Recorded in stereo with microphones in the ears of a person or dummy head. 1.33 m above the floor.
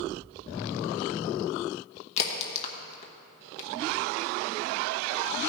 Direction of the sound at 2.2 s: 35° left (ahead or behind).